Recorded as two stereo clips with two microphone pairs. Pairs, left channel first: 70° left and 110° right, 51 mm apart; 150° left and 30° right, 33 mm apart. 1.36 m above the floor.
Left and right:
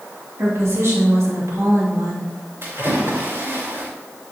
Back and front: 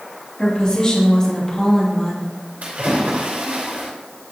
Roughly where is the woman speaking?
Behind right.